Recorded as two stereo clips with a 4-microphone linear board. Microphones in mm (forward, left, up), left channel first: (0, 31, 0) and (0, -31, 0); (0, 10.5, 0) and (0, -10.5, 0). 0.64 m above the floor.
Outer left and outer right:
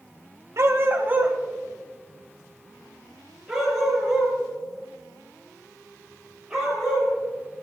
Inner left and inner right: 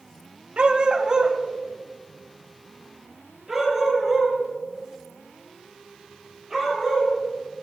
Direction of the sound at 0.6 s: 50° right (ahead or behind).